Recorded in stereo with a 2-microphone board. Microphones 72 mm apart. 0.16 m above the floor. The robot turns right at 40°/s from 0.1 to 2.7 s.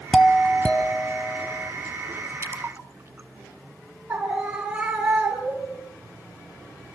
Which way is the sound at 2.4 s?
40° right (ahead or behind).